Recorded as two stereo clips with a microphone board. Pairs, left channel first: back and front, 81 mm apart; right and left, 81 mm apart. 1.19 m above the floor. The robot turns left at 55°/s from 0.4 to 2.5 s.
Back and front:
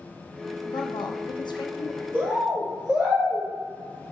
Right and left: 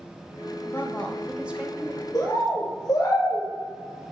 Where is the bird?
60° right, 0.9 m; by 3.5 s 75° right, 0.9 m.